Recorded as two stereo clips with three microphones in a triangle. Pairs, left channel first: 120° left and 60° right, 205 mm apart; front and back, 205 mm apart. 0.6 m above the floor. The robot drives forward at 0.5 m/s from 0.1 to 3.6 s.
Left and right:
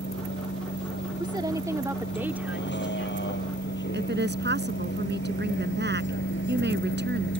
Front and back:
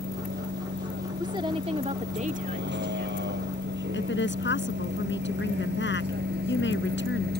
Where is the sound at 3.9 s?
25° right.